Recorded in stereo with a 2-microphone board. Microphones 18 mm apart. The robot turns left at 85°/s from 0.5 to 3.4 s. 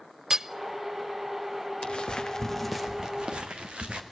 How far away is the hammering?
About 0.7 m.